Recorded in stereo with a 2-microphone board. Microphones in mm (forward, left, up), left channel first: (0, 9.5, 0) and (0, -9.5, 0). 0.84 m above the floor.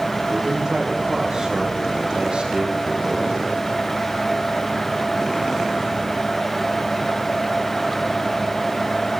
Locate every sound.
0.3 s a man speaking: 35° right (ahead or behind), 3.5 m; by 3.4 s 75° right (ahead or behind), 3.5 m